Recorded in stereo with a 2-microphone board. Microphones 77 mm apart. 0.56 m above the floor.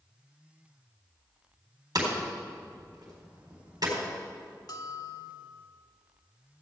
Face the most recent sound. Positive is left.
turn(degrees=60)  # may be behind; listen again after turning